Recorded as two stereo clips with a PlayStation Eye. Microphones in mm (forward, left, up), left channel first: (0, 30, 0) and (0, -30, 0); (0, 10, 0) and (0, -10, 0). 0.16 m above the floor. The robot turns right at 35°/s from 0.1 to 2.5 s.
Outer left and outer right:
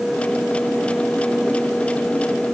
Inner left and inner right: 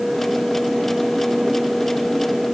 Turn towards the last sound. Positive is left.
No sound to turn to.